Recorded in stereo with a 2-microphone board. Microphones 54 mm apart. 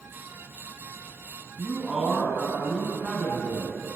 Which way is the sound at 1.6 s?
20° right (ahead or behind).